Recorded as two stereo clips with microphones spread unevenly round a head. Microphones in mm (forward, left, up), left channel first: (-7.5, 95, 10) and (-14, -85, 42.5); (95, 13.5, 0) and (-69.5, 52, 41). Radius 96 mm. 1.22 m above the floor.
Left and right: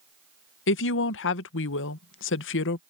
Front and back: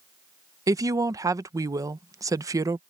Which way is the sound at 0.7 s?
95° left.